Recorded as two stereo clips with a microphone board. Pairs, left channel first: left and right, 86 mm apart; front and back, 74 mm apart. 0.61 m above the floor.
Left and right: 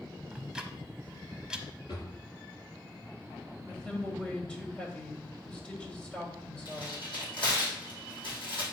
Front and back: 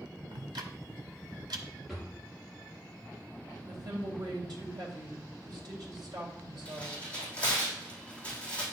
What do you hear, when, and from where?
0.3 s ticking: 170° right, 1.0 m
1.9 s a drawer: 90° left, 4 m
3.7 s a woman speaking: 165° left, 2.5 m
6.7 s tearing paper: 75° left, 5 m